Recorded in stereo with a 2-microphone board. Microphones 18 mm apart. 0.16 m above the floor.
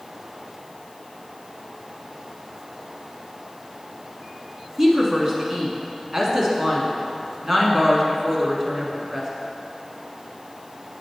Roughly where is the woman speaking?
Right.